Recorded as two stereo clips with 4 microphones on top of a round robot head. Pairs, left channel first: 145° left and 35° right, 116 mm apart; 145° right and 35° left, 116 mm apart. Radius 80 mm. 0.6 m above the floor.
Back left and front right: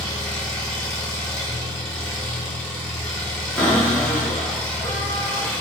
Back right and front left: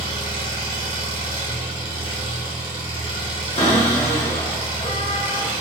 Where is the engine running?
65° left, 1.3 m.